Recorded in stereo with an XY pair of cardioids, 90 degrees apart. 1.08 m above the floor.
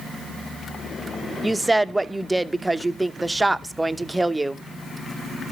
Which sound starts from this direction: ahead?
A woman speaking, at 1.4 s.